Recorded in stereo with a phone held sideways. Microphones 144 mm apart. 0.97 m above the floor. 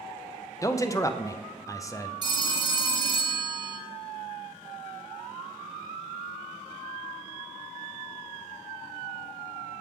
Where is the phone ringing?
30° right (ahead or behind), 1.5 m.